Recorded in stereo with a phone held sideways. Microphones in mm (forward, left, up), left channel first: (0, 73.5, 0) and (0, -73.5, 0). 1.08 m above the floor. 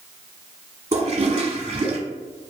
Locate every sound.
0.9 s a toilet flushing: 50° right (ahead or behind), 1.0 m